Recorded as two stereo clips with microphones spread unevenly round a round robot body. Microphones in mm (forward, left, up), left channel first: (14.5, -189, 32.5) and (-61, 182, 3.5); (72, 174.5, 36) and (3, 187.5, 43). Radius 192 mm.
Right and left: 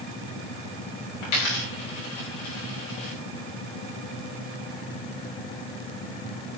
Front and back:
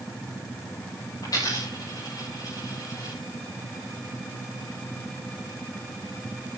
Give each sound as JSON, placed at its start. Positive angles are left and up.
{"t": 1.2, "sound": "a dropped coin", "azimuth_deg": -80, "distance_m": 7.0}